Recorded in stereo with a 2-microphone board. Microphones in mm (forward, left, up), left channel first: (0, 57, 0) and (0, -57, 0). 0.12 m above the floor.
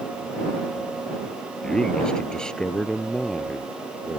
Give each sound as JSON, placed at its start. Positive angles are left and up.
{"t": 1.6, "sound": "a man speaking", "side_deg": 5}